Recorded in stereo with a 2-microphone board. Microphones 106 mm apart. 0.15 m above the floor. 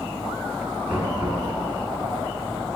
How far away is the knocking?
About 1.4 m.